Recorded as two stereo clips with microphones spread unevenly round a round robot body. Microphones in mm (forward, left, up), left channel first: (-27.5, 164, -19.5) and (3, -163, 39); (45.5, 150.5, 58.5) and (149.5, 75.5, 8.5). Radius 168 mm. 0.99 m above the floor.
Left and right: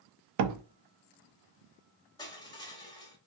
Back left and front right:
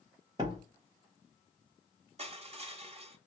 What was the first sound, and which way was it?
A door slam, 120° right.